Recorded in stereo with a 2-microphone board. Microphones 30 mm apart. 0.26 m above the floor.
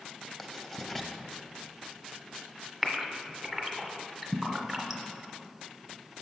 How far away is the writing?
About 0.6 m.